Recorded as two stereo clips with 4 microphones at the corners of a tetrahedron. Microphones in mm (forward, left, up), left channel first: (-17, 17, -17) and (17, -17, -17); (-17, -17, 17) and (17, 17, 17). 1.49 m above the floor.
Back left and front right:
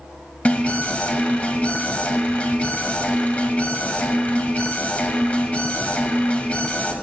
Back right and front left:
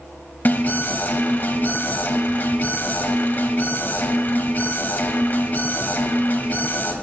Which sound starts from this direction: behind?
An alarm, at 0.5 s.